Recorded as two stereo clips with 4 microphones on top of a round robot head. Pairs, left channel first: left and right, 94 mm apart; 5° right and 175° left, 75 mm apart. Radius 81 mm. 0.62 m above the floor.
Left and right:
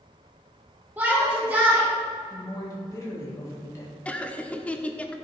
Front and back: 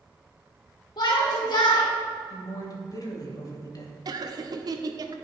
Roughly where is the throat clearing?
I don't hear throat clearing.